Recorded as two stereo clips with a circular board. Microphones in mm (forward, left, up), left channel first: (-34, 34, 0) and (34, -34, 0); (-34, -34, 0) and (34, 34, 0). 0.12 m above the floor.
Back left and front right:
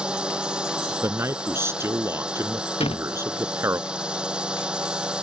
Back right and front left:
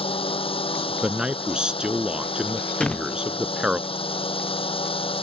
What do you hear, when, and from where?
0.0 s a drone: 125° right
1.0 s a man speaking: 25° right
2.8 s a door slam: 145° left